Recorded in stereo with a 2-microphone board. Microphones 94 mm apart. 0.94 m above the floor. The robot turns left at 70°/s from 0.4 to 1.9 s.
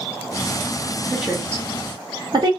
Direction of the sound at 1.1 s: 5° right (ahead or behind).